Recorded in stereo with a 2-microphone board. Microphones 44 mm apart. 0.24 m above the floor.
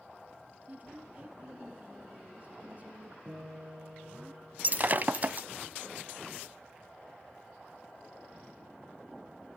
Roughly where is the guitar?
Right.